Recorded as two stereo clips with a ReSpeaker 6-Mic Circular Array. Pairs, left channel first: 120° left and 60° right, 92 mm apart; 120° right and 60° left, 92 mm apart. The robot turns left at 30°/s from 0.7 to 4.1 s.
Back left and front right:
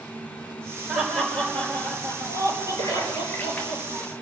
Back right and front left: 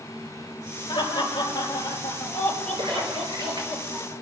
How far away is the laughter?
About 5.5 m.